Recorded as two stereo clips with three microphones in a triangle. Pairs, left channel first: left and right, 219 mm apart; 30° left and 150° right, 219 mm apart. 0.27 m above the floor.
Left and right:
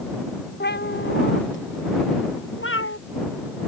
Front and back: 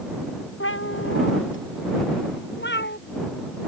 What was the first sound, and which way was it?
A cat meowing, 50° left.